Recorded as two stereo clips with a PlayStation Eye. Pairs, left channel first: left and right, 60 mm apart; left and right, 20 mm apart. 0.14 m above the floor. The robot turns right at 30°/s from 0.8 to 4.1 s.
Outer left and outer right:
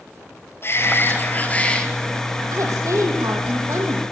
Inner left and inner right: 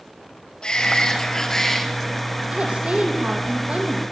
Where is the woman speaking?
110° right, 5.5 m; by 4.0 s 65° right, 5.5 m.